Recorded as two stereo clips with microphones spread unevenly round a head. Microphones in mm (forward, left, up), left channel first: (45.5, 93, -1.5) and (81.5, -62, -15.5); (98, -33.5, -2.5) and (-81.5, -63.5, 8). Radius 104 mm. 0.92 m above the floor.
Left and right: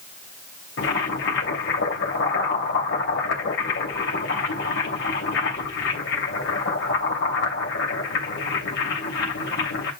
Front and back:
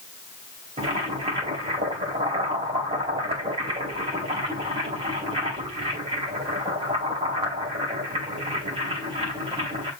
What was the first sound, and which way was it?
Boiling, 125° left.